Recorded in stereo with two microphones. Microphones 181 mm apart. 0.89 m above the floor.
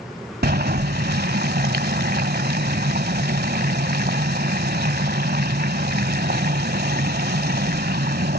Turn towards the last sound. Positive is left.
turn(degrees=-65)  # may be behind; listen again after turning